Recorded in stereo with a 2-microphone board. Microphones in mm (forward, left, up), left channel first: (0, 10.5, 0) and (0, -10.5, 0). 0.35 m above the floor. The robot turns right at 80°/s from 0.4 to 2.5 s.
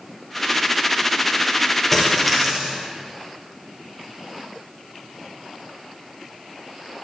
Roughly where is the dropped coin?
Centre.